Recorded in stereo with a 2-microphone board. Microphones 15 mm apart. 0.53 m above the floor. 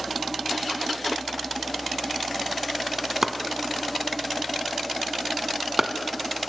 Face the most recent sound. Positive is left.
turn(degrees=-20)  # may be behind; listen again after turning